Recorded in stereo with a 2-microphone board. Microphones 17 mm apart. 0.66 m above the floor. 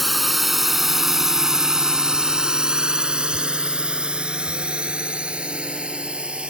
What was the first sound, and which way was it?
A drone, centre (ahead or behind).